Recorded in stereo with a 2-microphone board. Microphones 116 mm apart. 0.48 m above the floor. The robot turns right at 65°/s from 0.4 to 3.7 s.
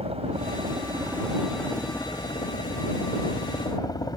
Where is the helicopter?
75° right; by 4.2 s 140° left.